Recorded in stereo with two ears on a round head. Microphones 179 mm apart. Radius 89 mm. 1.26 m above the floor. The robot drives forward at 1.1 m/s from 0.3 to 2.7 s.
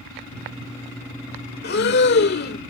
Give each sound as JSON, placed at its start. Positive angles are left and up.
{"t": 1.6, "sound": "breathing", "side_deg": 55}